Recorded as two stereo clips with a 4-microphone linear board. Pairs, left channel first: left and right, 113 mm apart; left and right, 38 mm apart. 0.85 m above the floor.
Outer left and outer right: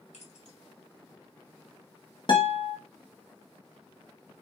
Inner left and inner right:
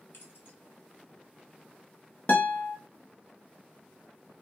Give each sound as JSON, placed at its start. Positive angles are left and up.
{"t": 0.1, "sound": "keys jangling", "side_deg": 75, "distance_m": 1.6}
{"t": 2.3, "sound": "a guitar", "side_deg": 45, "distance_m": 0.8}